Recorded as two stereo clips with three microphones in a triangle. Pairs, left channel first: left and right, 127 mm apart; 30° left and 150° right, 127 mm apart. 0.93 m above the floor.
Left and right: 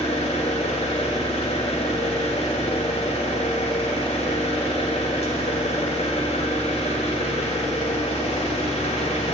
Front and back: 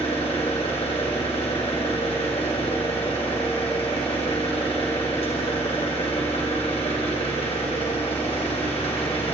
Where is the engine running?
65° left, 3 m.